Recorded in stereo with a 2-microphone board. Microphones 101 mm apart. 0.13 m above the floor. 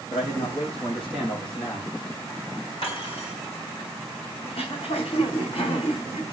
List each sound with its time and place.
0.1 s a man speaking: 60° left (ahead or behind), 5.5 m; by 1.9 s 55° left (ahead or behind), 5 m
2.8 s cutlery clinking: 60° left (ahead or behind), 6 m
4.4 s throat clearing: 75° left (ahead or behind), 5 m